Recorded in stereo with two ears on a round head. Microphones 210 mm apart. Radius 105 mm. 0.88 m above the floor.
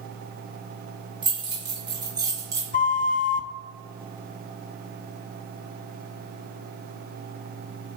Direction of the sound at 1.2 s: 20° right (ahead or behind).